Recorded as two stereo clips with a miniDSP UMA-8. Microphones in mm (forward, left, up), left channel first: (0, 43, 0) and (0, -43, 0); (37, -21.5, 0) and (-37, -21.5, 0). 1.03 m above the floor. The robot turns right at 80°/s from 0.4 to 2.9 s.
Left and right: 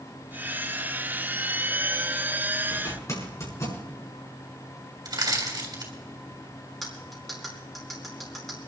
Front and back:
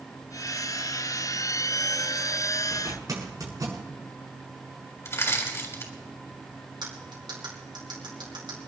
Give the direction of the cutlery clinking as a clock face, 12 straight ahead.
6 o'clock.